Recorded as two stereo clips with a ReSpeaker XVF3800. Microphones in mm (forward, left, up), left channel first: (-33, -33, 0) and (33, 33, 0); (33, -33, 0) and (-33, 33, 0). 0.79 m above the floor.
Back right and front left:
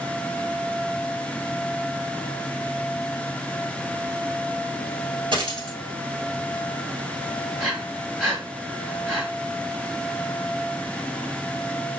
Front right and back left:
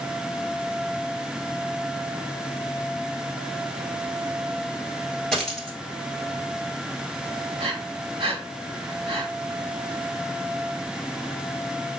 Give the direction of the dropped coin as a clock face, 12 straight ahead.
11 o'clock.